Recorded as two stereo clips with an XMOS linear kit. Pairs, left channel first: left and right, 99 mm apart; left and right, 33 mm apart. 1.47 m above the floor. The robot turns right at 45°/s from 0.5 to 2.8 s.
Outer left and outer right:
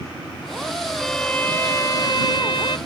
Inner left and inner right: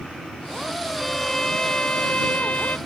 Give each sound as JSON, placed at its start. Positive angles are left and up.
{"t": 1.0, "sound": "a violin", "azimuth_deg": 0}